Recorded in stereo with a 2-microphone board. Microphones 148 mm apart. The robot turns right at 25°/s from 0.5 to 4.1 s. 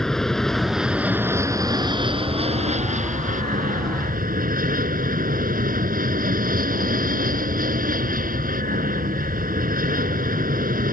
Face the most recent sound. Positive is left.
turn(degrees=-95)